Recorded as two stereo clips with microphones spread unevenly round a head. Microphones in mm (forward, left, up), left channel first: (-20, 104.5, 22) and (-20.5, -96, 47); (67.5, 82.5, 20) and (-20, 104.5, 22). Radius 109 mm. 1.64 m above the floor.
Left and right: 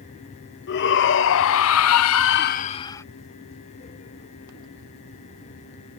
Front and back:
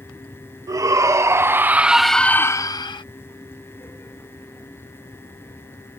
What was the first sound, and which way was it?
A shout, 120° left.